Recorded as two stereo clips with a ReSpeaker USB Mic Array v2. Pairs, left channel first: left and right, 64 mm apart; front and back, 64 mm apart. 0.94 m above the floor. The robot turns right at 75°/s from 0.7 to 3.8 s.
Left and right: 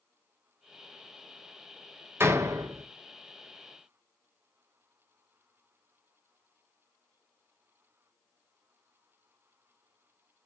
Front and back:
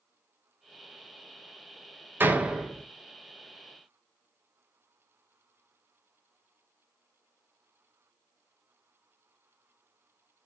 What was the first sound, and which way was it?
A door slam, 130° right.